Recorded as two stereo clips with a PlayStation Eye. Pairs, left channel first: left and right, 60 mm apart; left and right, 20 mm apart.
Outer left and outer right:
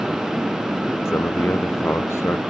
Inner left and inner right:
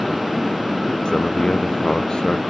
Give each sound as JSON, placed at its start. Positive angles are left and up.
{"t": 1.1, "sound": "a man speaking", "side_deg": 45}